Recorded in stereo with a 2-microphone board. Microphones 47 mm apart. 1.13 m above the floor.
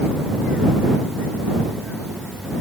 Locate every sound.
Only background noise.